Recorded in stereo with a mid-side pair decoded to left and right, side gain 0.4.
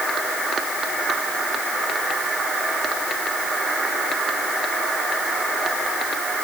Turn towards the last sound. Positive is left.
No sound to turn to.